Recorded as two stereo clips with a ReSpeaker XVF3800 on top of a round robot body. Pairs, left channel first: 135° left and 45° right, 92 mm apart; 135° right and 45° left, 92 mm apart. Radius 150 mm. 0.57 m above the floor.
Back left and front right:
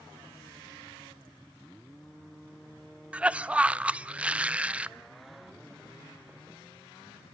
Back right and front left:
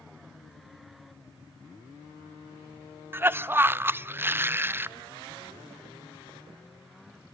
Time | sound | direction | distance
3.1 | a cough | 15° left | 0.7 m